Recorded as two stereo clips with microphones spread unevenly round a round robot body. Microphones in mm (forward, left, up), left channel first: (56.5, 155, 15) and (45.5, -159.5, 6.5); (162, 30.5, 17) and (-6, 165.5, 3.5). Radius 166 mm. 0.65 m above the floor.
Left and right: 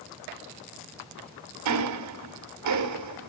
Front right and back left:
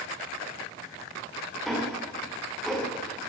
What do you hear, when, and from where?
1.6 s ticking: 130° right, 2.5 m